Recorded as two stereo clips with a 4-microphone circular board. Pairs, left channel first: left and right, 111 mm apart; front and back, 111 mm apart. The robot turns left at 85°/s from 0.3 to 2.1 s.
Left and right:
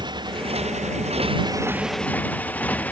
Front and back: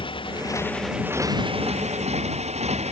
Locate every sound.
0.0 s a motorcycle: 40° right; by 2.9 s 165° left